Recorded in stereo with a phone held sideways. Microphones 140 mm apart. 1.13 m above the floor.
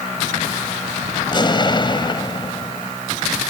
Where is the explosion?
35° left (ahead or behind).